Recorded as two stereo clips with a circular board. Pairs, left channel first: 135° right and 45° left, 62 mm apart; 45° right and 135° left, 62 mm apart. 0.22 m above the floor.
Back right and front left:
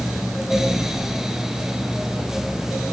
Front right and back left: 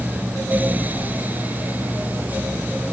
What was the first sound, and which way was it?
Only background noise.